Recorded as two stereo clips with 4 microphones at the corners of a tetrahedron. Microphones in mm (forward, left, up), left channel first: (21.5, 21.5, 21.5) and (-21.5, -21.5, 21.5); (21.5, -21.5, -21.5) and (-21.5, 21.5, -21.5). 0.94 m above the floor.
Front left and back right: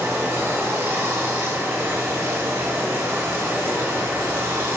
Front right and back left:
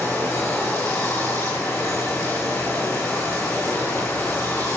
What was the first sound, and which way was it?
Running water, 85° right.